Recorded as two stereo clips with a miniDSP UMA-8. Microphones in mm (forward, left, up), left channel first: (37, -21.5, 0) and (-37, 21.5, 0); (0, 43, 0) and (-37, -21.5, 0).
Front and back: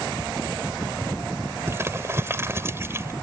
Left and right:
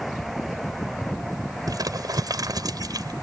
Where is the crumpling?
150° right.